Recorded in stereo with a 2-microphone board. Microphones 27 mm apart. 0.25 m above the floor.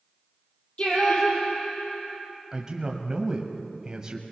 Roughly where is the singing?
Left.